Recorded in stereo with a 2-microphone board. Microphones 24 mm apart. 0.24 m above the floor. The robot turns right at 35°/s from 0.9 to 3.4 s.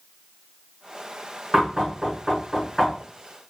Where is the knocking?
35° right (ahead or behind), 2.5 m; by 3.0 s 10° left (ahead or behind), 2.5 m.